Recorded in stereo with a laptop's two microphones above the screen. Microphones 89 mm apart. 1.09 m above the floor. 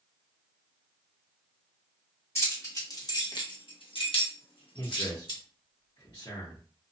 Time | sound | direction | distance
2.4 | keys jangling | 25° left (ahead or behind) | 1.4 m
4.8 | a man speaking | 55° left (ahead or behind) | 1.2 m